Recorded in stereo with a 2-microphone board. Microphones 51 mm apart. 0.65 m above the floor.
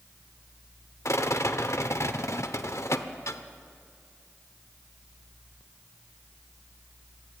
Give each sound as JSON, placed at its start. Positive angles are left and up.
{"t": 1.1, "sound": "a rattle", "side_deg": 65, "distance_m": 1.0}